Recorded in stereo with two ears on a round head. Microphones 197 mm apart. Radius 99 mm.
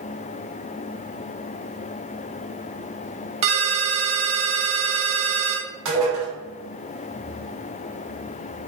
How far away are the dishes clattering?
About 1.3 m.